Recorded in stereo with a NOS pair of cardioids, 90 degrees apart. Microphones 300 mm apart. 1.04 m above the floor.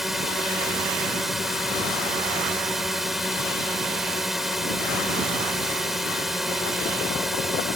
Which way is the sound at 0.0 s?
Straight ahead.